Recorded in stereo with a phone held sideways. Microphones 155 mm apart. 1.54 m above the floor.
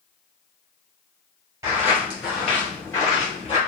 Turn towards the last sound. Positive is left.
turn(degrees=35)  # may be behind; listen again after turning